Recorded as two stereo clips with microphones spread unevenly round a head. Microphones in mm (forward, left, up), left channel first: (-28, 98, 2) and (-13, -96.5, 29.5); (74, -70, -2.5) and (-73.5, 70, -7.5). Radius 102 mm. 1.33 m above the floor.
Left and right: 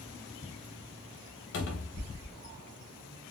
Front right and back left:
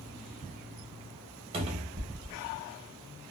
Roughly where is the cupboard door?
Left.